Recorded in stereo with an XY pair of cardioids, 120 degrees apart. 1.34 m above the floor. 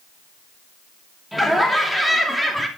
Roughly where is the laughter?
Ahead.